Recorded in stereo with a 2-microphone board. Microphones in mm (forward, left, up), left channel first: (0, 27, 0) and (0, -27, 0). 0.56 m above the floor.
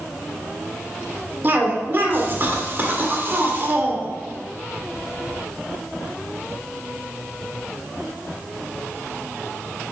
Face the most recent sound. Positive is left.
turn(degrees=-40)  # may be behind; listen again after turning